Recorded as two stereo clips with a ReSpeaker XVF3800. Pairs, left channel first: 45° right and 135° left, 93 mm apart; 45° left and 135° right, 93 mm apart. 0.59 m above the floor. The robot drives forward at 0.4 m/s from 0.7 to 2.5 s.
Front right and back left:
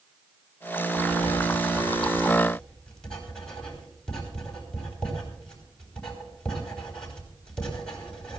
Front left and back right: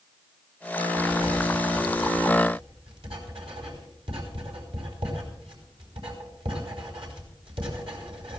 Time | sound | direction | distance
1.0 | writing | 120° right | 3.5 m